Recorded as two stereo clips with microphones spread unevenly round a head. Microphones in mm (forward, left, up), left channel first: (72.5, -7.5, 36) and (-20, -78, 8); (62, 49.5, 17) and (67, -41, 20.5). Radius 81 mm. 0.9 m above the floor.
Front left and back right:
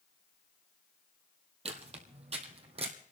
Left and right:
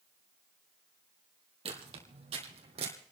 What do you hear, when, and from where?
1.6 s footsteps: 105° right, 2 m; by 2.9 s 100° right, 2.5 m